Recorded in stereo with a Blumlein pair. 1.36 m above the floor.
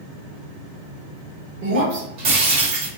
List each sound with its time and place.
1.6 s breaking glass: 40° right, 1.6 m